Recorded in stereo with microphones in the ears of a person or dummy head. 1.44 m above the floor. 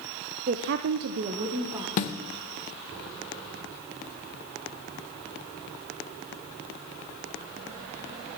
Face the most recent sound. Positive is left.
turn(degrees=45)  # may be behind; listen again after turning